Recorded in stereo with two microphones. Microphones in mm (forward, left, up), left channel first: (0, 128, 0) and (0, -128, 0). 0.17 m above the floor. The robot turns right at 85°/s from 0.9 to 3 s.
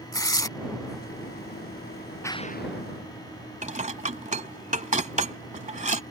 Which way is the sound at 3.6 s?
30° right (ahead or behind).